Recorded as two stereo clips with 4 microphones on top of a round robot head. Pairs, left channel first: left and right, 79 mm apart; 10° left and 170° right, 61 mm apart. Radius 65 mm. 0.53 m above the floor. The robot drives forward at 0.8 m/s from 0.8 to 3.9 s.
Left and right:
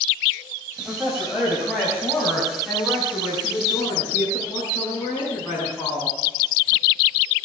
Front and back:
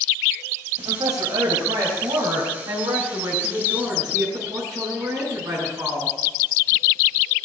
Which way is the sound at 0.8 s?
175° right.